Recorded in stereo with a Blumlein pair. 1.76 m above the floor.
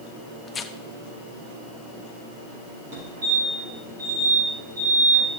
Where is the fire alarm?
50° right, 8 m.